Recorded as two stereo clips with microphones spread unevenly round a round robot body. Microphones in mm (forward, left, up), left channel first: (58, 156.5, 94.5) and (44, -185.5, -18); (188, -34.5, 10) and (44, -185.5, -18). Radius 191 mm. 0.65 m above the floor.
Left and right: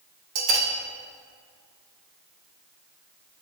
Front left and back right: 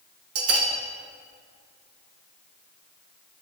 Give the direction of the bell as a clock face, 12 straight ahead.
4 o'clock.